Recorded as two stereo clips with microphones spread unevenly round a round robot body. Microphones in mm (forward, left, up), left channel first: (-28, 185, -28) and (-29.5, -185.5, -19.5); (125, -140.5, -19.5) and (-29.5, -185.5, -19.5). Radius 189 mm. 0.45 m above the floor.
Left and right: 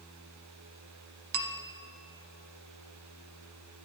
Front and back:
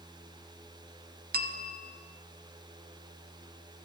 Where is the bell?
135° right, 0.7 m.